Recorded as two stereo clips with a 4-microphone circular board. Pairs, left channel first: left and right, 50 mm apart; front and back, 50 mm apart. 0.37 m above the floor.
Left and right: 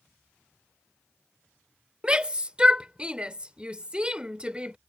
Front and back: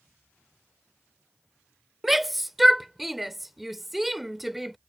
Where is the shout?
95° right.